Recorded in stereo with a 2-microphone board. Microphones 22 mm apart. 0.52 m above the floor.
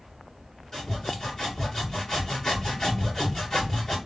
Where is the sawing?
30° left (ahead or behind), 1.5 m.